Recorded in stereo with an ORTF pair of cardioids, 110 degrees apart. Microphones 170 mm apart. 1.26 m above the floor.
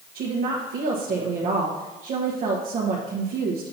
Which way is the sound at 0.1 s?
55° right.